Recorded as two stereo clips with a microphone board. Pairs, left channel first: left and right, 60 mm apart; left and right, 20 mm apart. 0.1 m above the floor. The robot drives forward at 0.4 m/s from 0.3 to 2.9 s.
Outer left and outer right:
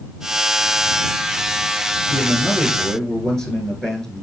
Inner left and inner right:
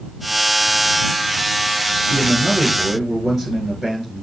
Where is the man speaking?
10° left (ahead or behind), 1.2 m.